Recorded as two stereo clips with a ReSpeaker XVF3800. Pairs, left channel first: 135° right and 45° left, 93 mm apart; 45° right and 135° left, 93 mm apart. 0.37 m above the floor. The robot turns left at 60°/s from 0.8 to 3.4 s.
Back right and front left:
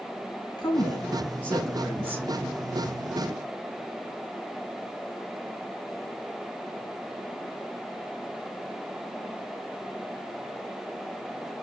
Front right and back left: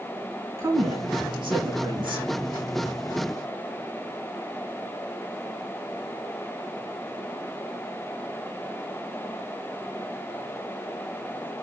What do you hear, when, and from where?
0.6 s a woman speaking: 175° right, 2.5 m; by 2.3 s 100° left, 2.5 m